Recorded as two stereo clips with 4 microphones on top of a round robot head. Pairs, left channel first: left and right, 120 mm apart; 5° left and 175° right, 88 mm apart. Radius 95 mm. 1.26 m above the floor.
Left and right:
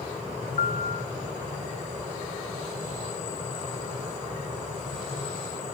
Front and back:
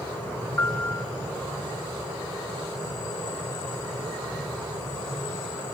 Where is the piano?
75° left, 1.2 m.